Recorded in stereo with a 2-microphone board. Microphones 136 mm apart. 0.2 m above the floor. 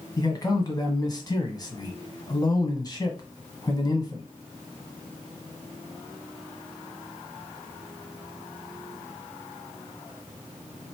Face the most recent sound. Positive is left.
turn(degrees=30)  # may be behind; listen again after turning